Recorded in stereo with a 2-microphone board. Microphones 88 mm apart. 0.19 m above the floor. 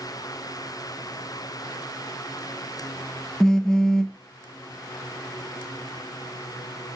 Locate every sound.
3.4 s a phone buzzing: 10° left (ahead or behind), 0.7 m